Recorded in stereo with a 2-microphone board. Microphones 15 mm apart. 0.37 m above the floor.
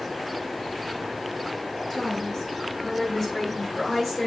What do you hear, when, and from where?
1.9 s a woman speaking: 25° left (ahead or behind), 6.5 m; by 4.3 s 15° left (ahead or behind), 5.5 m